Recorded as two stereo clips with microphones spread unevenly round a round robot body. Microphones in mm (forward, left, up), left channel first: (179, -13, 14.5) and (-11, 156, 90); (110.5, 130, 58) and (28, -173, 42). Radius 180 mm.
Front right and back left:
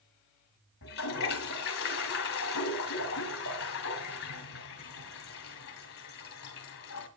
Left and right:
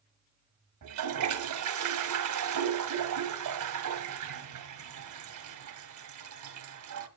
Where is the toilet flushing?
85° right, 2 m.